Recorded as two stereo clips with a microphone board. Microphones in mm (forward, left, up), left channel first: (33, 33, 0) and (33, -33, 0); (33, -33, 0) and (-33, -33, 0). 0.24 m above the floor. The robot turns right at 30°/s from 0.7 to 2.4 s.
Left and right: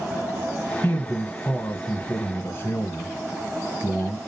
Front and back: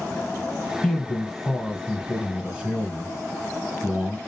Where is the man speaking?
70° left, 1.5 m; by 4.2 s 115° left, 1.5 m.